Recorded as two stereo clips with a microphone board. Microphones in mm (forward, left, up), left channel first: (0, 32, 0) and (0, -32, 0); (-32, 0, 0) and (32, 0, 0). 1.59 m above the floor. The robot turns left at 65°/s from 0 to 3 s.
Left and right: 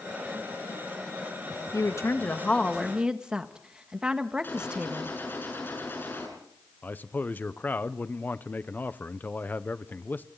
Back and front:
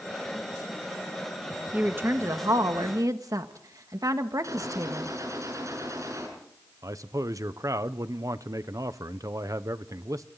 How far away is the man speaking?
About 0.9 m.